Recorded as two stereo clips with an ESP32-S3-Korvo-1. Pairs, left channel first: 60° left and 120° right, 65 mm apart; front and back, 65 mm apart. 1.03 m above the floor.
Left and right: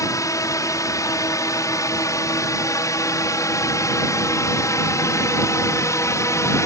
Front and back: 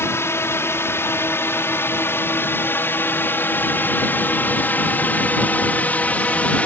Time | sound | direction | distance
0.0 | a drone | 40° left | ?